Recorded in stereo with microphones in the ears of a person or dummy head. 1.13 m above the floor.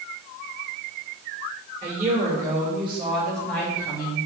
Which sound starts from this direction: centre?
A woman speaking, at 1.8 s.